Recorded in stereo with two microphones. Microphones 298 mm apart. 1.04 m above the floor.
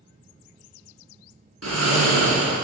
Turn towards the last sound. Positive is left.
turn(degrees=-55)  # may be behind; listen again after turning